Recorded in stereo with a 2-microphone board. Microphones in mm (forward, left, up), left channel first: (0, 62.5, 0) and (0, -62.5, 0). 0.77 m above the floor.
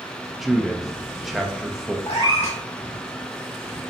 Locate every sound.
0.4 s a man speaking: centre (ahead or behind), 0.5 m
2.1 s a cat meowing: 60° left (ahead or behind), 1.4 m